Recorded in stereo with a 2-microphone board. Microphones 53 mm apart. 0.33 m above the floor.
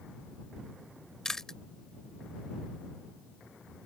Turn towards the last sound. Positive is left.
turn(degrees=10)  # may be behind; listen again after turning